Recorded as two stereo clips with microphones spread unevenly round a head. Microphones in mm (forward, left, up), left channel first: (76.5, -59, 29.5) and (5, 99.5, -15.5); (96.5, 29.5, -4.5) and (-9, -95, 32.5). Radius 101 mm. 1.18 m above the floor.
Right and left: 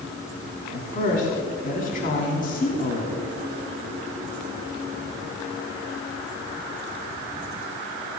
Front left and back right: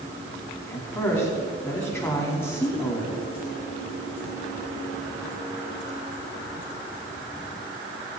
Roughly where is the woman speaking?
Ahead right.